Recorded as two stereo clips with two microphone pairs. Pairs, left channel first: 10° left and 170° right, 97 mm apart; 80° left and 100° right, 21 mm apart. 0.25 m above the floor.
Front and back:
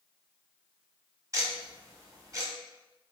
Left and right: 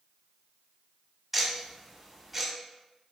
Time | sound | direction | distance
1.3 | ticking | straight behind | 1.1 m